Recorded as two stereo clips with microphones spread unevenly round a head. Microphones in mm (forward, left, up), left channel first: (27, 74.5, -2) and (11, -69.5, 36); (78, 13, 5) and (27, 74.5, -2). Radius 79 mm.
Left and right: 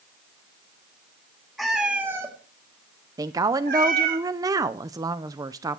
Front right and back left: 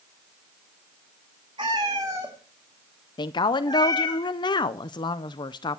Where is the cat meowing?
Straight behind, 2 m; by 4.2 s 95° right, 2 m.